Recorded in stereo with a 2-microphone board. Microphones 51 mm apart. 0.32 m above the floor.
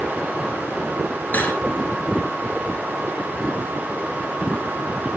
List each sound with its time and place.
1.3 s cutlery clinking: 35° left (ahead or behind), 2.5 m